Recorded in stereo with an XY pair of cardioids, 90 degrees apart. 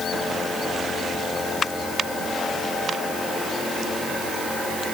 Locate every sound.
Only background noise.